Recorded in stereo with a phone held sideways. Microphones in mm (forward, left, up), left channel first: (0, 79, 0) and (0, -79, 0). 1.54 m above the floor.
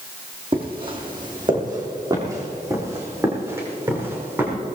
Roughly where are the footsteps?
Right.